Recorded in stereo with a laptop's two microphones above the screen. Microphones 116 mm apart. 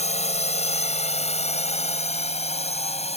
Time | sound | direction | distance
0.0 | a drone | 70° left (ahead or behind) | ?